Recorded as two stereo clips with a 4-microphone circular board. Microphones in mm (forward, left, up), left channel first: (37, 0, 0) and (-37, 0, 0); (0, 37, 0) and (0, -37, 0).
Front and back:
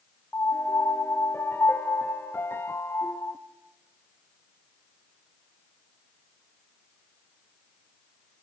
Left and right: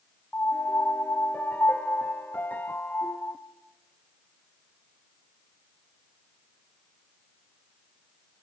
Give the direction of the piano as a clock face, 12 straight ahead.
11 o'clock.